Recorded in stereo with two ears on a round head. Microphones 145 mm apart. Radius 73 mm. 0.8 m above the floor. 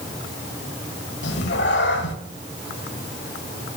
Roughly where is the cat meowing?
Left.